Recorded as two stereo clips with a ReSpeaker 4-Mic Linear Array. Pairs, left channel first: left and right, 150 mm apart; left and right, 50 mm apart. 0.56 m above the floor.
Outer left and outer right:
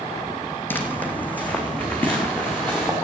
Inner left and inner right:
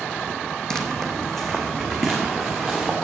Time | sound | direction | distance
0.7 | footsteps | 15° left (ahead or behind) | 1.3 m